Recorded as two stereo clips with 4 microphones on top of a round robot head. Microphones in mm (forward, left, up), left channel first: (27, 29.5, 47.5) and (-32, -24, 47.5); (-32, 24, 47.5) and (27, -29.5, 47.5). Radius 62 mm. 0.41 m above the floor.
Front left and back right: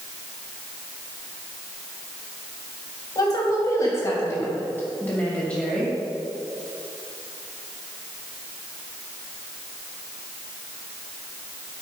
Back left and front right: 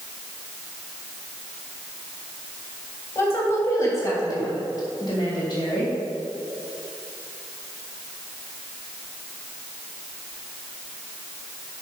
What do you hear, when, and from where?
3.1 s a woman speaking: 80° left, 3 m; by 5.9 s 125° left, 2.5 m